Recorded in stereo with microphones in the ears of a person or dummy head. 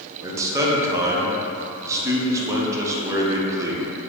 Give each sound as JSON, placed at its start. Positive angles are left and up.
{"t": 0.2, "sound": "a man speaking", "side_deg": -15, "distance_m": 0.6}